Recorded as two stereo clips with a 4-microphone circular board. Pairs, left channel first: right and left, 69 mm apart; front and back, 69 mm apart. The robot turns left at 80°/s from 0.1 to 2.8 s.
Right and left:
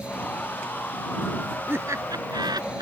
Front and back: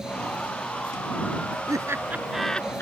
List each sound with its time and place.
1.7 s laughter: 150° left; by 2.8 s 60° left